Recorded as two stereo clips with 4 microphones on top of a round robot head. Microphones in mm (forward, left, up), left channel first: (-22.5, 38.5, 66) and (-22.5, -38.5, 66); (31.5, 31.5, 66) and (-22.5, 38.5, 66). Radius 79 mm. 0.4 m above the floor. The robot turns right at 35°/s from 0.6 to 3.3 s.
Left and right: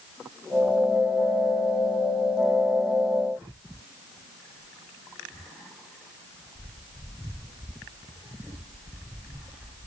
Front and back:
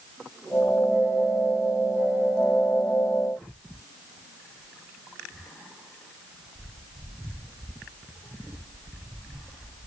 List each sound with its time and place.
Only background noise.